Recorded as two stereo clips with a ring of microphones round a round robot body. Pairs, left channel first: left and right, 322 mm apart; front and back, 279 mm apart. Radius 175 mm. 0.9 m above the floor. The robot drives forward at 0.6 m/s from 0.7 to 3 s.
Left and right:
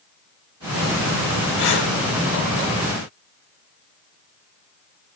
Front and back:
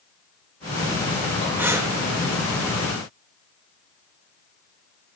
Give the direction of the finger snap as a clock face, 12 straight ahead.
No finger snap in this recording.